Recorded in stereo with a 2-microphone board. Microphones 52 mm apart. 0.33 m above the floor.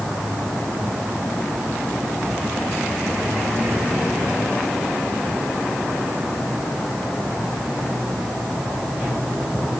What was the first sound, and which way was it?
Only background noise.